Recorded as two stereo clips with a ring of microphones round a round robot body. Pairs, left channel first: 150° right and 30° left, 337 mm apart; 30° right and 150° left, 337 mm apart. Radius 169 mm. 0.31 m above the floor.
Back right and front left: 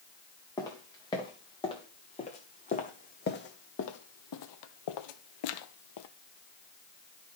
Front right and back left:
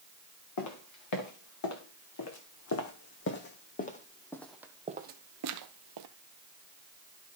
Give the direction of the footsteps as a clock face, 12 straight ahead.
2 o'clock.